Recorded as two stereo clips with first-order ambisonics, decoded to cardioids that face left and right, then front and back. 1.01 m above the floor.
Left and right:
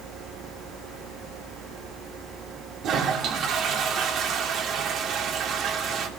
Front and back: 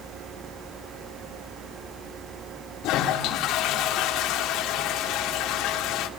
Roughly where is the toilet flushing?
Ahead right.